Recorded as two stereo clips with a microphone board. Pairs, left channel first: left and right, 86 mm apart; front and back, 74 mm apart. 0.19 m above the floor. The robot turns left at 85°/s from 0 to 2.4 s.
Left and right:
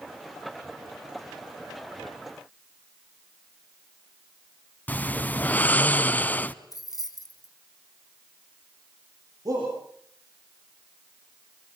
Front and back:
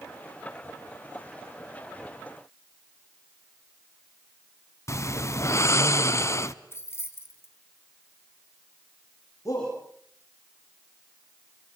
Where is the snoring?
25° left, 0.6 m.